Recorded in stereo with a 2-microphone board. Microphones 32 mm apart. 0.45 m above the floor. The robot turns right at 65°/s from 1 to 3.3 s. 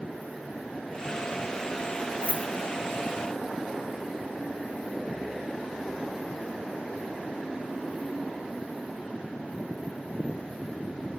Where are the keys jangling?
35° right (ahead or behind), 4.5 m; by 2.5 s 50° right (ahead or behind), 4.5 m.